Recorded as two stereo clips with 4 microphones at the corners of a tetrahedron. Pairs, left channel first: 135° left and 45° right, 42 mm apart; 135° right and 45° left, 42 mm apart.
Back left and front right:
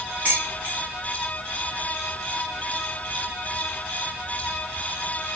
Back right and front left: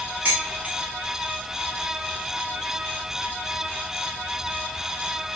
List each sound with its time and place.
0.2 s dishes clattering: 5° left, 1.4 m